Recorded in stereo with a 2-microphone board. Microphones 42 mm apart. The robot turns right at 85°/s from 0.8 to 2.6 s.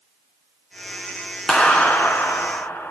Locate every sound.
1.5 s a clap: 15° left, 2.5 m; by 2.9 s 110° left, 2.5 m